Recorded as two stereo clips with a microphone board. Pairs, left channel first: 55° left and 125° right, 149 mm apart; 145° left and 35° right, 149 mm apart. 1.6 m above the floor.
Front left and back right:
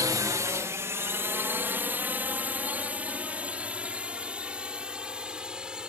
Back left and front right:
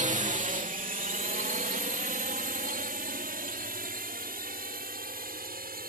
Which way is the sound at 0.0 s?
60° right.